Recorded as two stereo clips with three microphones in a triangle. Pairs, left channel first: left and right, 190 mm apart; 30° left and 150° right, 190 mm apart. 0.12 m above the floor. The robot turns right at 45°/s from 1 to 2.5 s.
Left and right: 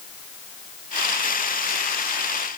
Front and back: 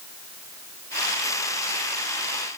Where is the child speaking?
I don't hear a child speaking.